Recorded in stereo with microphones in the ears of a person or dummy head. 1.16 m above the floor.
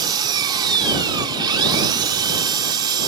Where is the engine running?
25° right (ahead or behind).